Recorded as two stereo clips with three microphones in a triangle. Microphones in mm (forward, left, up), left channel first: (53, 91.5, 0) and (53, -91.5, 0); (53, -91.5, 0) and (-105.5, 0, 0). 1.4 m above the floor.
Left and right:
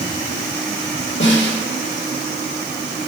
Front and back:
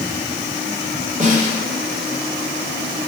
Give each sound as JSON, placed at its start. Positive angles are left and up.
{"t": 1.2, "sound": "a snare drum", "azimuth_deg": 100, "distance_m": 2.5}